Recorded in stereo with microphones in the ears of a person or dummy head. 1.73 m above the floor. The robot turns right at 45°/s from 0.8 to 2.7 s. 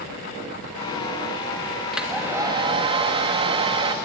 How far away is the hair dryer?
About 1.7 m.